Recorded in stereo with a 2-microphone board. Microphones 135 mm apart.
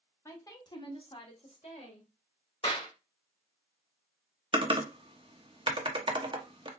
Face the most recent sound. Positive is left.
turn(degrees=-40)  # may be behind; listen again after turning